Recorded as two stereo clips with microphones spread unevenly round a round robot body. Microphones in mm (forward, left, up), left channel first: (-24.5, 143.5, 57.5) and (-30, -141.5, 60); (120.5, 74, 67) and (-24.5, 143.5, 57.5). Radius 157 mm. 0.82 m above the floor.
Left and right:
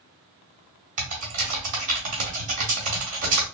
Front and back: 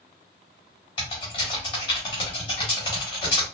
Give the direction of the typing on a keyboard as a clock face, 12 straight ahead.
2 o'clock.